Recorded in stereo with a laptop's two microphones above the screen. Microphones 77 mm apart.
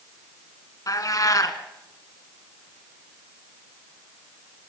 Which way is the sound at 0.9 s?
50° left (ahead or behind).